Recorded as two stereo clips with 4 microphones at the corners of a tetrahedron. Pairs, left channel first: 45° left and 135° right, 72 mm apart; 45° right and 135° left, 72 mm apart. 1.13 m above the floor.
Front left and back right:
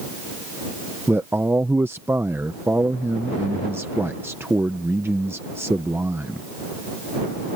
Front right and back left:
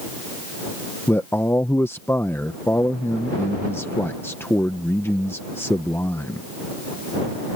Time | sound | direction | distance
1.1 | a man speaking | 90° right | ?